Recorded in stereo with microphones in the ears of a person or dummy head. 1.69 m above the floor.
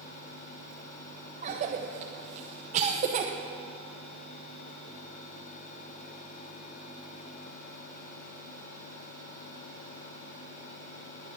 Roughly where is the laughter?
No laughter in this recording.